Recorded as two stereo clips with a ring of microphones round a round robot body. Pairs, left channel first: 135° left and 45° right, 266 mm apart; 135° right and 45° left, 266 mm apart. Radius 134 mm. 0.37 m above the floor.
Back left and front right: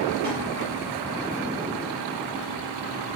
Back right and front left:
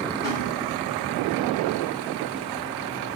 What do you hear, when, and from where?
0.2 s a snare drum: 70° right, 1.5 m